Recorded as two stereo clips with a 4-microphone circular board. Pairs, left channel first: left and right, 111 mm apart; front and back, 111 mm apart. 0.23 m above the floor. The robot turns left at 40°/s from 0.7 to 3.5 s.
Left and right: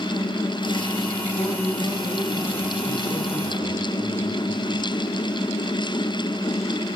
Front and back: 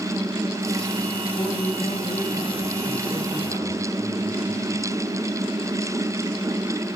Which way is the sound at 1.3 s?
45° left.